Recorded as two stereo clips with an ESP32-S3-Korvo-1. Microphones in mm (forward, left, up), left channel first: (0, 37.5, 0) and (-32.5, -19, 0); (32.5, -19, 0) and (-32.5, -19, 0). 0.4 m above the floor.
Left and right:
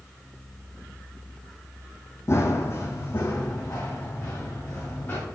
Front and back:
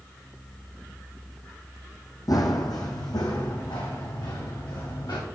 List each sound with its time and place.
2.3 s running footsteps: 15° left, 1.2 m; by 5.2 s straight ahead, 3 m